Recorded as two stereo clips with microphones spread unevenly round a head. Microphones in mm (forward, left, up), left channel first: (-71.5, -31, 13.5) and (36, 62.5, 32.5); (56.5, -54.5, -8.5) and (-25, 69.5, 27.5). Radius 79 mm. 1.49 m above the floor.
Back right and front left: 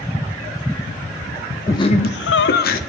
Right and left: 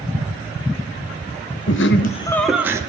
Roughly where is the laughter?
Ahead right.